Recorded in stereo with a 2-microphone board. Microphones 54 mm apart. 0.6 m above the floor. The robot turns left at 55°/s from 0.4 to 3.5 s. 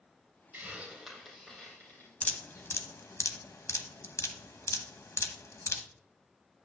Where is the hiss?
40° right (ahead or behind), 3.5 m; by 2.7 s 80° left, 3.5 m.